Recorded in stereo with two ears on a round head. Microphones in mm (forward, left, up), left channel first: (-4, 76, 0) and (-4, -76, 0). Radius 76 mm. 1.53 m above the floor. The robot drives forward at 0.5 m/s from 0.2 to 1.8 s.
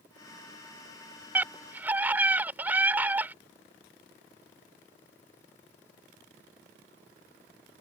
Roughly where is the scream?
Centre.